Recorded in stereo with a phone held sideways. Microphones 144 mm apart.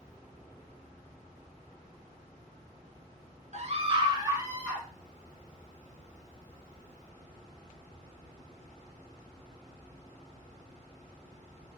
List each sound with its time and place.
3.5 s a scream: 55° right (ahead or behind), 1.0 m; by 4.9 s 10° right (ahead or behind), 2 m